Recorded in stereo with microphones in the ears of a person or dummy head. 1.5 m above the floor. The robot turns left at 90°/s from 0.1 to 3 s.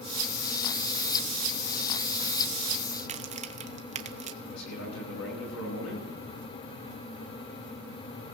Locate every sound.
3.0 s a crack: 35° right (ahead or behind), 0.7 m; by 4.3 s 30° right (ahead or behind), 0.7 m
4.4 s a man speaking: 85° left, 9.5 m